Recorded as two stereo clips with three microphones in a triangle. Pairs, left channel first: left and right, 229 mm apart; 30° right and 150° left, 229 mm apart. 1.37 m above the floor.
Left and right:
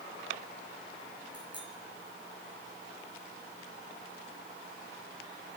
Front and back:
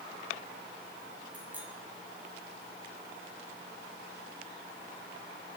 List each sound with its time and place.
1.3 s a bicycle bell: 125° right, 7.5 m